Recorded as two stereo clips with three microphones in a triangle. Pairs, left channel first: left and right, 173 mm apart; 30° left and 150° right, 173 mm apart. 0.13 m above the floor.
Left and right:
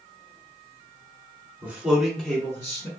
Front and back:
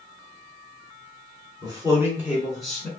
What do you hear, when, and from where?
1.6 s a man speaking: 155° right, 1.4 m; by 2.9 s 105° left, 1.3 m